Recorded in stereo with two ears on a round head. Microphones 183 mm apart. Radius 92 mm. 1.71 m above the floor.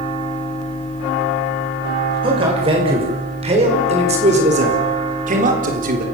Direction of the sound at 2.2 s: 25° right (ahead or behind).